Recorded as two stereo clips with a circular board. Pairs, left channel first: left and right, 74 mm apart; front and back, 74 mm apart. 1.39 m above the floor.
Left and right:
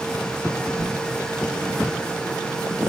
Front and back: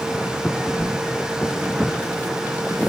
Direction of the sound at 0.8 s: 65° left.